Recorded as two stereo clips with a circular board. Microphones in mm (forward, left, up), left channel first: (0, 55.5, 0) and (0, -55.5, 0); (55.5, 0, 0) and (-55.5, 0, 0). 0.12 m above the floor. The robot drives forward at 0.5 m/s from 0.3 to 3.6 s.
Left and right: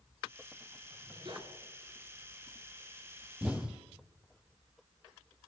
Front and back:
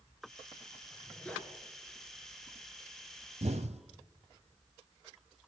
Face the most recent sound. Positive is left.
turn(degrees=-175)